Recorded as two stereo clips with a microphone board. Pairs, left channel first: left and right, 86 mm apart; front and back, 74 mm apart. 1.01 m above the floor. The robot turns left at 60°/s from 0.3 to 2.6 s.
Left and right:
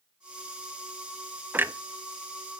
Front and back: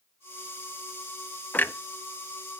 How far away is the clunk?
About 0.6 m.